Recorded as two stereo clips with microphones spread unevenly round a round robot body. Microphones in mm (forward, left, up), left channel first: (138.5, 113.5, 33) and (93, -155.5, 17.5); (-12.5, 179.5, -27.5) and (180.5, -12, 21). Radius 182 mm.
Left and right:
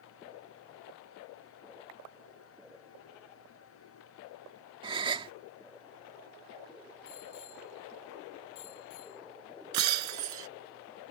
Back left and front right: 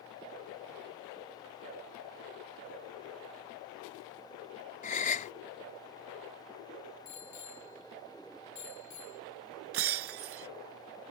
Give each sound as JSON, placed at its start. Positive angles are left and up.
{"t": 4.8, "sound": "a gasp", "azimuth_deg": -170}
{"t": 7.0, "sound": "a bicycle bell", "azimuth_deg": 125}
{"t": 9.7, "sound": "breaking glass", "azimuth_deg": -85}